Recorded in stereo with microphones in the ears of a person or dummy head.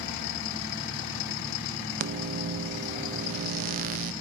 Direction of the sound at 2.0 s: 50° right (ahead or behind).